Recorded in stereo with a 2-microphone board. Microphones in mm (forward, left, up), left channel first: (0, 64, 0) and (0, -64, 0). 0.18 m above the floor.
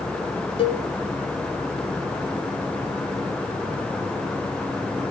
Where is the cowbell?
50° left (ahead or behind), 0.6 m.